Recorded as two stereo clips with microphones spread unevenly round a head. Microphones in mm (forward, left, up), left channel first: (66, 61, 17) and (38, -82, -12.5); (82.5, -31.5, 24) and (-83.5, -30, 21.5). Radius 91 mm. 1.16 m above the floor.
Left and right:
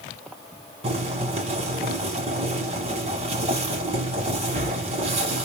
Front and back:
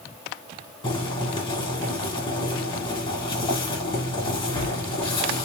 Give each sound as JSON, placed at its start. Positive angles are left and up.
{"t": 0.8, "sound": "boiling", "azimuth_deg": -55, "distance_m": 1.7}